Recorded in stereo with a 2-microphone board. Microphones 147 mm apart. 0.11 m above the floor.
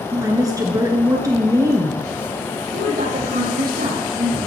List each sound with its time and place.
0.1 s a woman speaking: 25° right (ahead or behind), 1.5 m
2.7 s a woman speaking: 70° right (ahead or behind), 4.5 m